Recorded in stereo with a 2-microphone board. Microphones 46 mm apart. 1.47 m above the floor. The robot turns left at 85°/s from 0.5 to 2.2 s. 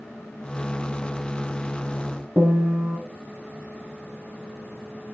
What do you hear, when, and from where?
2.4 s a piano: 50° right (ahead or behind), 1.1 m